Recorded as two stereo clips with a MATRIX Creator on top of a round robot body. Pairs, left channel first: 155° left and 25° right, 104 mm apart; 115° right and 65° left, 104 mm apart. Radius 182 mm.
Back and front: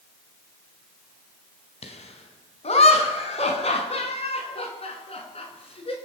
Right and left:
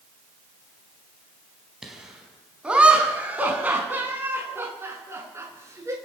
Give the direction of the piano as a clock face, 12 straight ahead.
I don't hear a piano.